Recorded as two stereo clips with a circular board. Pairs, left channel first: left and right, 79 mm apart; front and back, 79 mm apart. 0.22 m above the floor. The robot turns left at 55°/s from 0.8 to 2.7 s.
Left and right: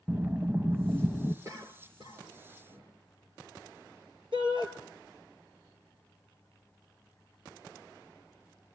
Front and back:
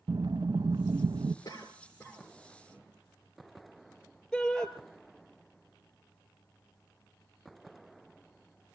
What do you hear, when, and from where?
0.1 s breathing: 160° right, 0.7 m; by 1.4 s 170° left, 0.7 m
1.4 s a cough: 40° right, 3.5 m; by 2.9 s 110° right, 3.5 m
4.3 s a shout: 85° right, 3.5 m